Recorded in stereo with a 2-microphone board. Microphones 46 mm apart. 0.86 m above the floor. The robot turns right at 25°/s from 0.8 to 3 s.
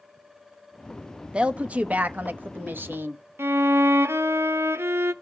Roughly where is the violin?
Right.